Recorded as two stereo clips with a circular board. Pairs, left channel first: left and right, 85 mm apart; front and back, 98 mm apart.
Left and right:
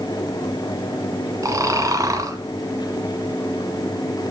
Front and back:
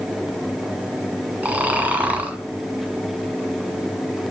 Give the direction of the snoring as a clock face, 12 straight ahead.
4 o'clock.